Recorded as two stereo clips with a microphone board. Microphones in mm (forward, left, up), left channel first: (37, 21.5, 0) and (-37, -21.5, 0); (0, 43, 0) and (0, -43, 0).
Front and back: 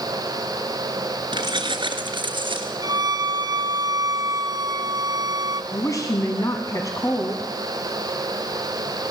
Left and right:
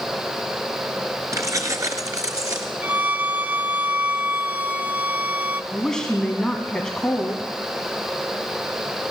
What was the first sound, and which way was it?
Keys jangling, 140° right.